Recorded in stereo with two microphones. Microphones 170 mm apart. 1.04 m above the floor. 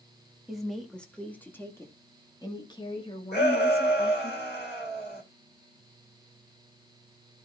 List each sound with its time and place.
0.5 s a woman speaking: centre (ahead or behind), 2.5 m; by 4.3 s 40° left (ahead or behind), 3 m
3.3 s a shout: 85° left, 4 m